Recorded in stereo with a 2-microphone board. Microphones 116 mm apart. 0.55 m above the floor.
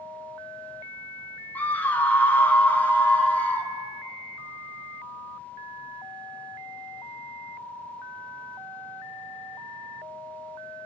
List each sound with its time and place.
1.6 s a scream: 15° left (ahead or behind), 0.6 m